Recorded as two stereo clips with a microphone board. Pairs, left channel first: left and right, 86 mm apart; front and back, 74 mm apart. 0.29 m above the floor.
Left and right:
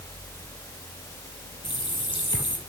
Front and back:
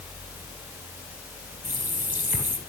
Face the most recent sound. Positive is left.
turn(degrees=115)